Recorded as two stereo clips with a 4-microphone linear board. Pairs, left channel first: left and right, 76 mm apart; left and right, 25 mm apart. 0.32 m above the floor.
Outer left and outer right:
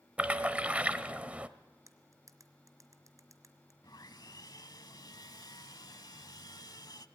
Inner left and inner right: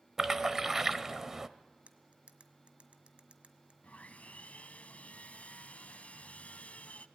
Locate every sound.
0.2 s a splash: 20° right (ahead or behind), 1.0 m
1.9 s cutlery clinking: 50° right (ahead or behind), 1.6 m
3.8 s sawing: 65° left (ahead or behind), 0.9 m